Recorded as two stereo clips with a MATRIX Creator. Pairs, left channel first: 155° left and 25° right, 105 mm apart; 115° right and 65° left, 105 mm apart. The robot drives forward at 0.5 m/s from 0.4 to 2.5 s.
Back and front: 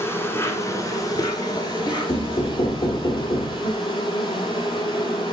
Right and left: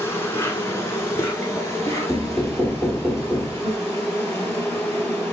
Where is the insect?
155° right, 0.9 m; by 5.3 s 170° right, 1.7 m.